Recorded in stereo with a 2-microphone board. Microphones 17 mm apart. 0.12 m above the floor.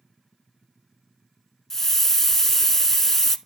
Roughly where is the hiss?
Left.